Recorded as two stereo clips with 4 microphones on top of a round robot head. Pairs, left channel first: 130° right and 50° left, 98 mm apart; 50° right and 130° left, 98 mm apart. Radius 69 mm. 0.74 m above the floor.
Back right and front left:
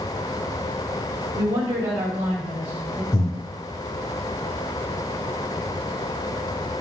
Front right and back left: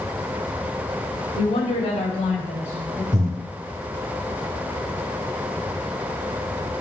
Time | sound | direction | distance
1.4 | a woman speaking | 10° right | 3 m
3.1 | breathing | straight behind | 0.6 m